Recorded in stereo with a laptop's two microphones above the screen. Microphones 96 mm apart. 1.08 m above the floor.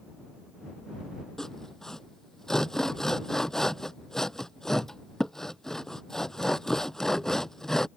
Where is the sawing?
5° left (ahead or behind).